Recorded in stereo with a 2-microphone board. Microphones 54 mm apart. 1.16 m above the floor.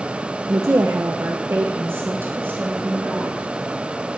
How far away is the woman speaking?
About 1.0 m.